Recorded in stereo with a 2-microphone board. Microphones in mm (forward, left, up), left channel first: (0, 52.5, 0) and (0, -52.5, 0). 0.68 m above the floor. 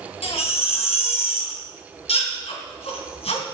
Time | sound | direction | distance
0.2 | a baby crying | 75° left (ahead or behind) | 3 m